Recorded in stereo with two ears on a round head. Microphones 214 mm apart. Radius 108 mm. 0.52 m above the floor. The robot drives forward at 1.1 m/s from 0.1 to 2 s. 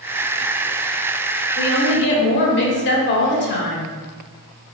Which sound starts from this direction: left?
A woman speaking, at 1.6 s.